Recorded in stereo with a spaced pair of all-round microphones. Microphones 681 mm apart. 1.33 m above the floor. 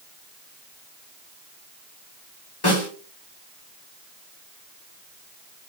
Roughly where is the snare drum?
Left.